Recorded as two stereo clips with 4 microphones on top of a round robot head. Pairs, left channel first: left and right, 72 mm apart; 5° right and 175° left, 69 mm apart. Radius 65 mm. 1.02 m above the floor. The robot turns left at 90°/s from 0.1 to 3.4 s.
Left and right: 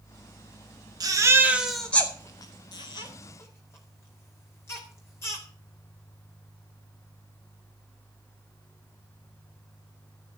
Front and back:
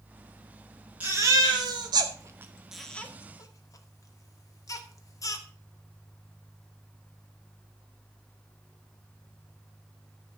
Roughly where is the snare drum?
No snare drum in this recording.